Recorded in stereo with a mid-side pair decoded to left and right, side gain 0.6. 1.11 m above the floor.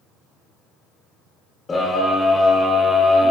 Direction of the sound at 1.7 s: 25° left.